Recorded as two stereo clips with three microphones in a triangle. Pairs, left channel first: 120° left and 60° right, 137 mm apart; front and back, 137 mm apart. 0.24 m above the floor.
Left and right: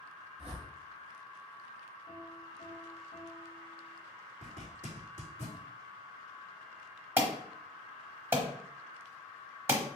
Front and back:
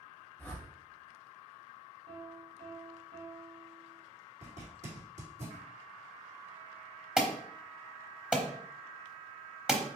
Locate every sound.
0.4 s a whoosh: 75° left, 2.0 m
2.1 s a piano: 150° left, 1.1 m
4.4 s a zipper: 150° left, 2.0 m
7.2 s an alarm: 105° right, 0.9 m